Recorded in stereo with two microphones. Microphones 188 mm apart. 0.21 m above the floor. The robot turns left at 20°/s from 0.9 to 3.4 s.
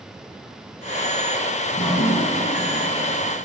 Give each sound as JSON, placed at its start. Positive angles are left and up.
{"t": 1.7, "sound": "dripping", "azimuth_deg": 120, "distance_m": 1.6}